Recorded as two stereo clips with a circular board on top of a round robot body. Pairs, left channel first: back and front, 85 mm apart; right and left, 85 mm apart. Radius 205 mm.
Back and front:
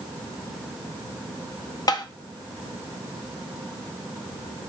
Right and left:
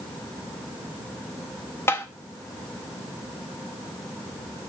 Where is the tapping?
150° right, 0.6 m.